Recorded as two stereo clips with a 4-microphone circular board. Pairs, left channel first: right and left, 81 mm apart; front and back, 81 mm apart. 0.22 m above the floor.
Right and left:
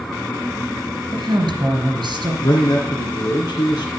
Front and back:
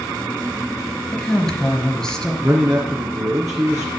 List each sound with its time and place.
1.1 s a woman speaking: 80° left, 3 m
2.4 s a man speaking: 130° right, 2.5 m